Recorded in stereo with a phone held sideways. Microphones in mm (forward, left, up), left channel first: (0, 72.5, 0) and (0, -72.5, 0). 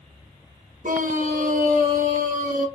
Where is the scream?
65° right (ahead or behind), 0.8 m.